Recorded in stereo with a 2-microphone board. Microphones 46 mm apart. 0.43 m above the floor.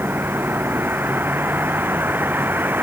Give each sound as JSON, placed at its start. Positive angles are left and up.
{"t": 0.0, "sound": "a vehicle", "side_deg": -50}